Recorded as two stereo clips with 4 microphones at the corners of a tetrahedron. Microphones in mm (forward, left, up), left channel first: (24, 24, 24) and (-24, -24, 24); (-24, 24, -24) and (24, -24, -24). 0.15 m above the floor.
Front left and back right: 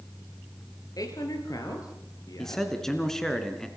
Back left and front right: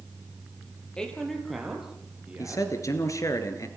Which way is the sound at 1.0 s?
60° left.